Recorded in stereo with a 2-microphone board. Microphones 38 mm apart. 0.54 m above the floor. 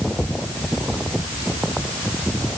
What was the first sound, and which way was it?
Only background noise.